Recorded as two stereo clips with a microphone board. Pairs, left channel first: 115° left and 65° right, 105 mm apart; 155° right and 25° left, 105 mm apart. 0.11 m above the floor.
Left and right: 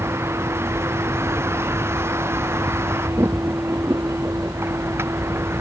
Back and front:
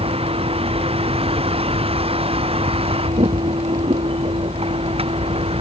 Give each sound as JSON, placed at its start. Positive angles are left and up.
{"t": 0.0, "sound": "a vehicle", "azimuth_deg": 0}